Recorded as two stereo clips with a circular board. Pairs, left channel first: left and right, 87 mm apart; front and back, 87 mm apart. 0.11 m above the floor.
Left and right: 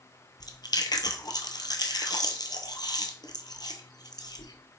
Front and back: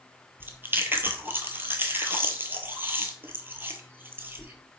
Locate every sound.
0.4 s chewing: 120° left, 0.7 m